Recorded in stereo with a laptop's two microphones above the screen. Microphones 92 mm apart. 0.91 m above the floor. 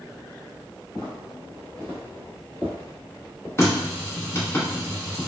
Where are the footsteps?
5° left (ahead or behind), 1.9 m; by 3.5 s 25° left (ahead or behind), 1.0 m.